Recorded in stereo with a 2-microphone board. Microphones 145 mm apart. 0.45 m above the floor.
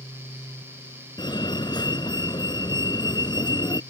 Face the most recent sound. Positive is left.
turn(degrees=30)  # may be behind; listen again after turning